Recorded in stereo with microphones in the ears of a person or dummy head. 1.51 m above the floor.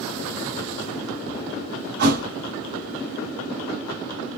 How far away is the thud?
About 2.5 m.